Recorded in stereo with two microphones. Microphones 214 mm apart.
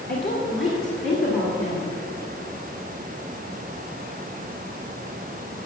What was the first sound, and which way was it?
A woman speaking, 50° left (ahead or behind).